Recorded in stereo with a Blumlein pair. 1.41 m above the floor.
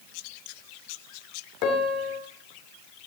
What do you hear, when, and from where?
1.6 s a piano: 40° left, 3 m